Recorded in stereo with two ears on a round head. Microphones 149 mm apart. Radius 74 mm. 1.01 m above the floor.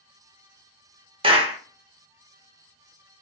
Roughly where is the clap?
Right.